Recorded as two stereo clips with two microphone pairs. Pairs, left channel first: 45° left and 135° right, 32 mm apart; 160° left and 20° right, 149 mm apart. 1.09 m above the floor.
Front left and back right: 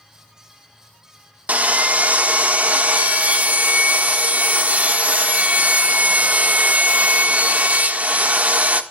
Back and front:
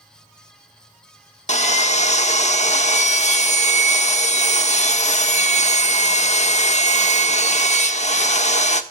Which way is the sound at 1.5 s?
165° right.